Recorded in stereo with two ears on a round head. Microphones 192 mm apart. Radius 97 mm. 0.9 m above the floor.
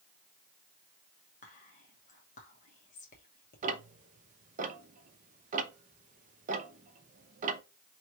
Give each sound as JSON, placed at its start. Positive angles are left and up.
{"t": 1.4, "sound": "whispering", "side_deg": 35, "distance_m": 1.0}
{"t": 3.6, "sound": "ticking", "side_deg": -35, "distance_m": 0.6}